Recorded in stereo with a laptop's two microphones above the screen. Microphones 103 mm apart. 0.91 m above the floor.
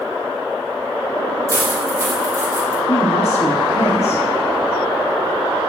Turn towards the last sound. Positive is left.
turn(degrees=75)  # may be behind; listen again after turning